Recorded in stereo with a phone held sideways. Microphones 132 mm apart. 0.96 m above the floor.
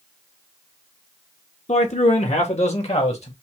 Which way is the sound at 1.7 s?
60° left (ahead or behind).